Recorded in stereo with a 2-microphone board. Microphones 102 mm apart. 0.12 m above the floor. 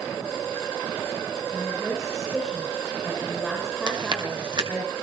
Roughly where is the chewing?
Right.